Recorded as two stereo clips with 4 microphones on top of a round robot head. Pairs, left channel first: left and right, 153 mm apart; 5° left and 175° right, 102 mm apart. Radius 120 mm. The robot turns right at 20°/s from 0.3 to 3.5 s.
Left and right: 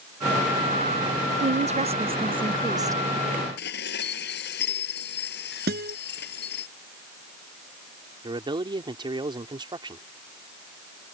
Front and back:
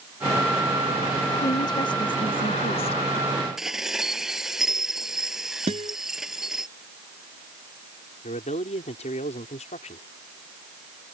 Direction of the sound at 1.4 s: 55° right.